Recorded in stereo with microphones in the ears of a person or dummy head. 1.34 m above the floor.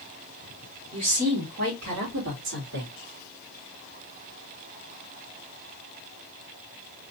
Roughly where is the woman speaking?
Right.